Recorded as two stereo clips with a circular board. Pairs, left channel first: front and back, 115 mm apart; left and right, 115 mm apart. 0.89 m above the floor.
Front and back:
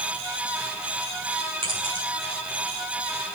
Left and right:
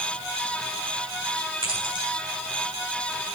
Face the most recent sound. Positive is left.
turn(degrees=-140)